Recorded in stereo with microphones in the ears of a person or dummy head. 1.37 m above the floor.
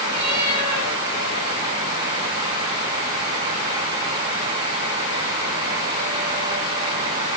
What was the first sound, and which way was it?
A cat meowing, 55° right (ahead or behind).